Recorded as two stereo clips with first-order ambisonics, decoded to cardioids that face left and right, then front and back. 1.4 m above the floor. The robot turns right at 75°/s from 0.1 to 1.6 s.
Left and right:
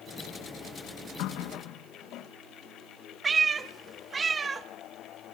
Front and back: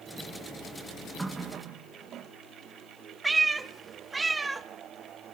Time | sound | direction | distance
1.2 | a running tap | 100° left | 1.0 m
3.2 | a cat meowing | 130° right | 0.8 m